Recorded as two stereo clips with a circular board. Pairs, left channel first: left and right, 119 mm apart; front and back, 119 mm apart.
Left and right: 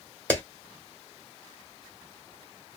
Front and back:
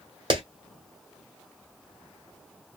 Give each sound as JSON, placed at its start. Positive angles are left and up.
{"t": 0.3, "sound": "a clap", "azimuth_deg": 160, "distance_m": 1.6}